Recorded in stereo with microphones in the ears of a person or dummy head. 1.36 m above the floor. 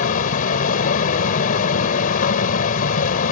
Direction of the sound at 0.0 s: 45° left (ahead or behind).